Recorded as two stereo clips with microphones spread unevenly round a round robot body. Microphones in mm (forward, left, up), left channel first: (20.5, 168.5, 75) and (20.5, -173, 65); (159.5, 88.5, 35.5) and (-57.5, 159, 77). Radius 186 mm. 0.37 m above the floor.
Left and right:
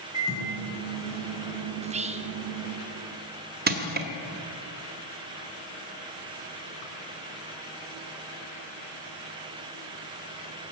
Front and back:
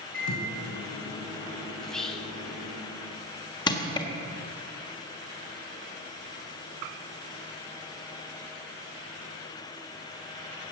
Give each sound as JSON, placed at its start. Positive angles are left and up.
{"t": 0.1, "sound": "a microwave", "azimuth_deg": 10, "distance_m": 4.5}
{"t": 1.8, "sound": "whispering", "azimuth_deg": -75, "distance_m": 1.0}
{"t": 3.7, "sound": "crushing", "azimuth_deg": -55, "distance_m": 1.4}